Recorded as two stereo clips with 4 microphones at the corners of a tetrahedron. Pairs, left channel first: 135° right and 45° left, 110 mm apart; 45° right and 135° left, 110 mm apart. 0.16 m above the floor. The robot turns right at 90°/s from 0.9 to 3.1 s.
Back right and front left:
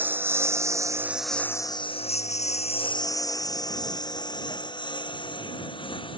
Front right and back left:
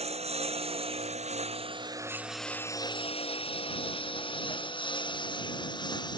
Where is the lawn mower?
120° left; by 6.2 s 95° right.